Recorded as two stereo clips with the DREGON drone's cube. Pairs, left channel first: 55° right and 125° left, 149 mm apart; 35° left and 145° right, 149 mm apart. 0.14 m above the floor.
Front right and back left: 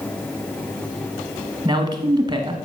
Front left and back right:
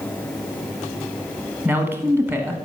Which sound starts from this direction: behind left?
A man speaking, at 1.6 s.